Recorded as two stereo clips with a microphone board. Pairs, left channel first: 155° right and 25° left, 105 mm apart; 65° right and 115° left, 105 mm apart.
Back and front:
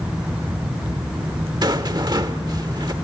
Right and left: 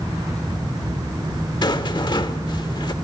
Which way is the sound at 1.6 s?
25° right.